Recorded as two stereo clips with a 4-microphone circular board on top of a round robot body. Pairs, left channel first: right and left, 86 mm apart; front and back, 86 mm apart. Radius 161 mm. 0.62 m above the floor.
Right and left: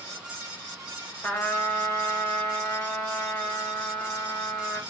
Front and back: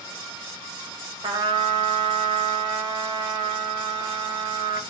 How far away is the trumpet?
About 1.2 m.